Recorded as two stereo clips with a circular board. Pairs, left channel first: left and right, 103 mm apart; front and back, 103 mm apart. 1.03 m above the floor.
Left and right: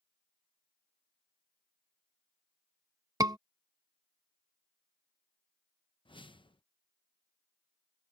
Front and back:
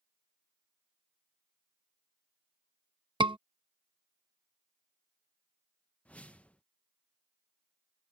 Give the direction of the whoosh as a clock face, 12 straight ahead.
9 o'clock.